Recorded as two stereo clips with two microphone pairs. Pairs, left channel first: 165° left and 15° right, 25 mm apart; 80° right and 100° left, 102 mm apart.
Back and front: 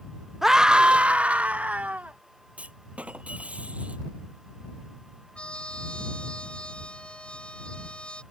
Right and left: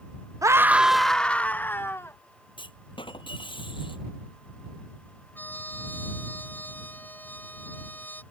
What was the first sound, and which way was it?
A scream, 55° left.